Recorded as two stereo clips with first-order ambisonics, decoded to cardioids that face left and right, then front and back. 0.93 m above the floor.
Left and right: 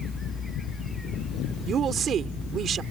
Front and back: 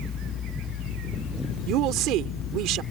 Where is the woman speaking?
150° right.